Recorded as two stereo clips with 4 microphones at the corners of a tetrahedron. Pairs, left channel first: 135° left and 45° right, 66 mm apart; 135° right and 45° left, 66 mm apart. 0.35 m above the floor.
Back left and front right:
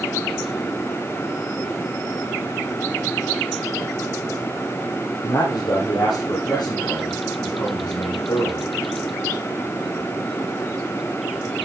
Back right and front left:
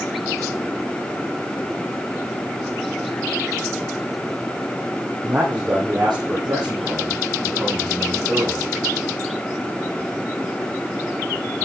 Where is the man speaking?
120° left, 9 m.